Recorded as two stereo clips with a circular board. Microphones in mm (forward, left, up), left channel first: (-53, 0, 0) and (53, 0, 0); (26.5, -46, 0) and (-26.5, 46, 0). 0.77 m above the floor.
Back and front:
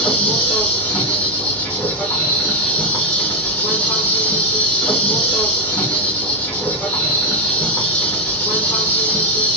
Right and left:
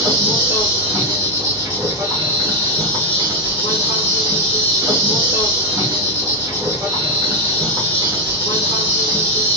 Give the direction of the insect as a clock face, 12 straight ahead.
8 o'clock.